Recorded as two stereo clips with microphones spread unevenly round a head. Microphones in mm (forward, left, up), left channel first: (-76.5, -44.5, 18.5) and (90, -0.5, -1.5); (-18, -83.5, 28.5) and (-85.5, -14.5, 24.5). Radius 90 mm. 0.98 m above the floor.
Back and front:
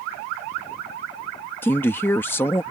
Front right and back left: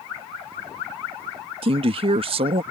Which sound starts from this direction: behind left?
A man speaking, at 1.6 s.